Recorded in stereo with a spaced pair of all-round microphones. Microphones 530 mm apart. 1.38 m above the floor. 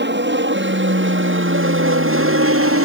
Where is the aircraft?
20° right (ahead or behind); by 2.9 s 25° right (ahead or behind).